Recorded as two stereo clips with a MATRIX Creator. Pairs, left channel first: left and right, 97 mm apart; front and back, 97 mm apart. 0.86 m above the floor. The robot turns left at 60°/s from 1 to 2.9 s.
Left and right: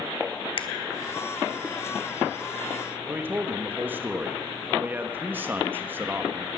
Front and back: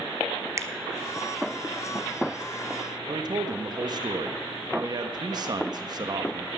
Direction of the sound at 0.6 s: 120° left.